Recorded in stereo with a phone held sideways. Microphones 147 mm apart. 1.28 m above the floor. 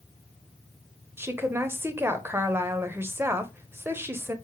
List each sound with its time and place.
1.2 s a woman speaking: 15° right (ahead or behind), 0.7 m